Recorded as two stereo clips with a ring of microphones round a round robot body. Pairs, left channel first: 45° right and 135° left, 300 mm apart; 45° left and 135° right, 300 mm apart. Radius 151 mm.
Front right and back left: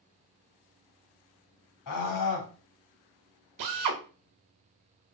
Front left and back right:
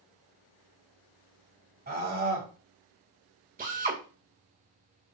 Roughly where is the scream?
Right.